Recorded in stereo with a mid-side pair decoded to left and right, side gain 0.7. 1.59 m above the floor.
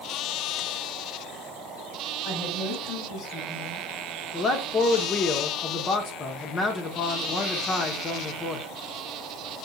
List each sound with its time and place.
2.2 s a woman speaking: 55° left, 3 m
4.3 s a man speaking: 35° left, 1.0 m